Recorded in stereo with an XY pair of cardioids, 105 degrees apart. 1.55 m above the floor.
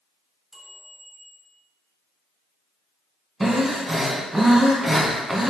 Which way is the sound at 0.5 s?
30° right.